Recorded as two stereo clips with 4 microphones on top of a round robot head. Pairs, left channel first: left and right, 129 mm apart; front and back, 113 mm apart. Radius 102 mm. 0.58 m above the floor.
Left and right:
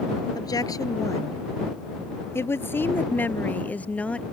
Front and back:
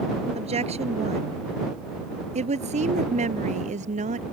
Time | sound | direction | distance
0.3 | a woman speaking | 150° left | ?